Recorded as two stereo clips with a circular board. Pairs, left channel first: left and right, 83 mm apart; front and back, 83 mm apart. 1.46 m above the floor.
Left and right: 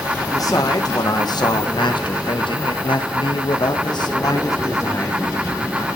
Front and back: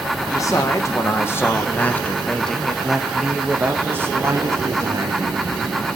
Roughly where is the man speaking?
Ahead left.